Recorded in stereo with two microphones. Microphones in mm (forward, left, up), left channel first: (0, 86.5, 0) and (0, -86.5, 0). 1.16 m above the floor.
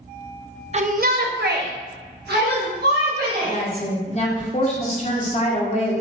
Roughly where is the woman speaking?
Left.